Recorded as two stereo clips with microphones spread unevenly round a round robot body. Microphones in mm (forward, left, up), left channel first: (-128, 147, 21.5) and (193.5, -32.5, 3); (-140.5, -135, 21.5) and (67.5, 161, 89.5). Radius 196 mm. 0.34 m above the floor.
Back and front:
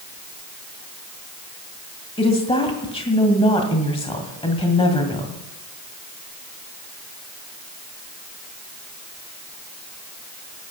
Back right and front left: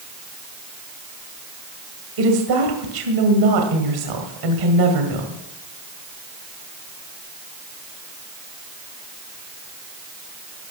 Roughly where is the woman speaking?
Left.